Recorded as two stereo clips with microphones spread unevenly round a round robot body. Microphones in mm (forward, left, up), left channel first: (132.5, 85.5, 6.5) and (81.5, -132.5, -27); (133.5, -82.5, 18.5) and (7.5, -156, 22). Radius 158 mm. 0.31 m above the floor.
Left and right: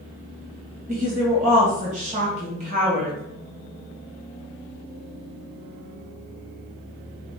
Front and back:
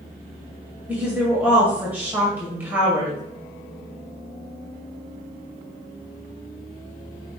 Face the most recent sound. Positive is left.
turn(degrees=-75)